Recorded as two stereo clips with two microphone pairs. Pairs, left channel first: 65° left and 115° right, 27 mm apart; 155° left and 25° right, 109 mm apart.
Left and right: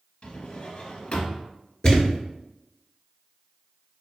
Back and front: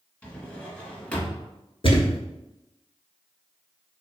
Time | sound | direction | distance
0.2 | a drawer | 85° left | 0.9 m
1.8 | a thud | 125° left | 0.8 m